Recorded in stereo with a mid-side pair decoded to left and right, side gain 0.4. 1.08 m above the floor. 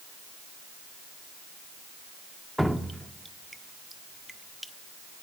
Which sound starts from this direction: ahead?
Dripping, at 2.6 s.